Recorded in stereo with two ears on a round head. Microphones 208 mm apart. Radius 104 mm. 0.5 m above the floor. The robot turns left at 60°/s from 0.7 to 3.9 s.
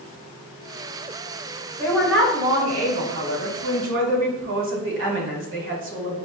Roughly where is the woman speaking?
Ahead.